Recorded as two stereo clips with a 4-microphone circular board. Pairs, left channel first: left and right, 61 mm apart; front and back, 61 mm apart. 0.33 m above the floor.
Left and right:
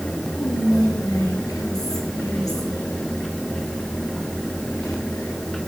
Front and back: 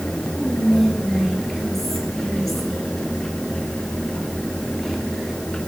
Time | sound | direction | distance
0.4 | whispering | 85° left | 5 m